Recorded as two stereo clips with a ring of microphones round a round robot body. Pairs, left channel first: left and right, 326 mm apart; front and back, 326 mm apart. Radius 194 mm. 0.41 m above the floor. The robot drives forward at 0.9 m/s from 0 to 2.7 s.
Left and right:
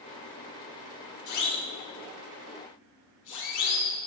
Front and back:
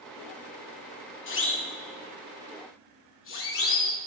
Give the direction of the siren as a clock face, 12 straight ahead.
10 o'clock.